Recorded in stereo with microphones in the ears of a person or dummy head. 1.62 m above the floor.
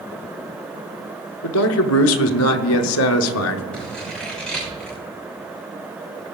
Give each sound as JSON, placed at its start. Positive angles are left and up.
{"t": 1.4, "sound": "a man speaking", "side_deg": 85, "distance_m": 0.7}
{"t": 3.7, "sound": "scissors", "side_deg": 5, "distance_m": 5.5}